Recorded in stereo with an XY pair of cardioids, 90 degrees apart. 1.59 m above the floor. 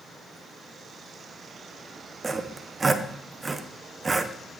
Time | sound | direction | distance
2.2 | sawing | 30° right | 0.9 m